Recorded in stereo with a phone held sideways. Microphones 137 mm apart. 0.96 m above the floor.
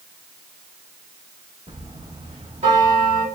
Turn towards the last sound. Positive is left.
turn(degrees=-60)  # may be behind; listen again after turning